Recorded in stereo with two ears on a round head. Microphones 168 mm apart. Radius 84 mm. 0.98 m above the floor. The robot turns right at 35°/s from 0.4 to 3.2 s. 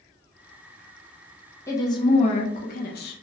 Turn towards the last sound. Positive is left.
turn(degrees=70)